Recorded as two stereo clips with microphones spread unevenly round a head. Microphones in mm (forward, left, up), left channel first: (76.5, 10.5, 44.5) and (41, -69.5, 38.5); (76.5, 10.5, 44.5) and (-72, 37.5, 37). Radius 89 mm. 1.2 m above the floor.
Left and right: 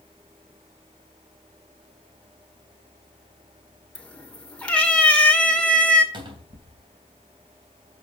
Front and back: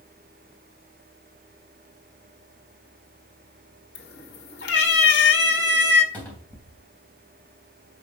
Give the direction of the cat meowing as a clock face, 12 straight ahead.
12 o'clock.